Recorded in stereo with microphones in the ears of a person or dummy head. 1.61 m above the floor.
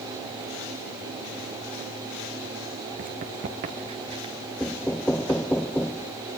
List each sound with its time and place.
3.0 s running footsteps: 40° right (ahead or behind), 2 m; by 4.3 s 20° right (ahead or behind), 1.9 m
4.6 s knocking: 5° left (ahead or behind), 0.7 m